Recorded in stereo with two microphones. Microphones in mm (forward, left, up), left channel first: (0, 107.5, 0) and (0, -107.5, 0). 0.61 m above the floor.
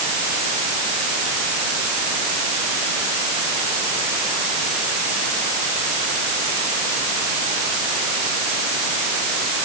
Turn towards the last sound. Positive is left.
No sound to turn to.